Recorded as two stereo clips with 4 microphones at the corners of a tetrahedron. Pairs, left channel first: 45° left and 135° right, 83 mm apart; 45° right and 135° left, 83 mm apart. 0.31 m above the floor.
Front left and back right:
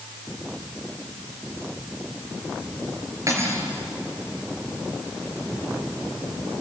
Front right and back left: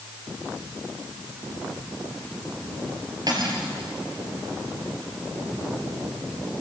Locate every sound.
3.3 s cutlery clinking: 175° left, 4 m